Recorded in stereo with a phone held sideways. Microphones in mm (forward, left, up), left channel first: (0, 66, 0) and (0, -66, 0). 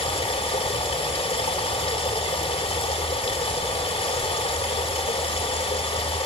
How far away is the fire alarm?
I don't hear a fire alarm.